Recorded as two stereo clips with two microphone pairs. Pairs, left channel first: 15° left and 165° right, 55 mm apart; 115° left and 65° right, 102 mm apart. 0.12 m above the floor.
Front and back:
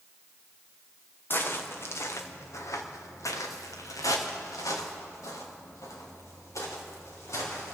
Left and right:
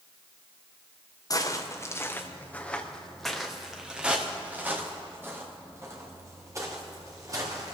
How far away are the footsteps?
About 2.5 m.